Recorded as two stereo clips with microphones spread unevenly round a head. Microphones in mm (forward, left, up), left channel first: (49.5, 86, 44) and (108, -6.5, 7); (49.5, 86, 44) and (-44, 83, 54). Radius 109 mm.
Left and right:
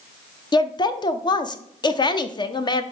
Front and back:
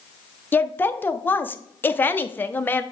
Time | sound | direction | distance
0.5 | a woman speaking | 75° left | 0.7 m